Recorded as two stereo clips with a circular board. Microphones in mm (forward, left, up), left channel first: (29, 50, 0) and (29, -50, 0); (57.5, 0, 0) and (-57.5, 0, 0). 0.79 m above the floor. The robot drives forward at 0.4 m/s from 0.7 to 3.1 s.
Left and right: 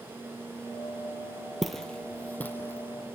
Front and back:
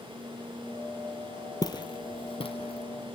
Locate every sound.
1.6 s footsteps: 5° right, 0.9 m; by 3.1 s 25° left, 1.9 m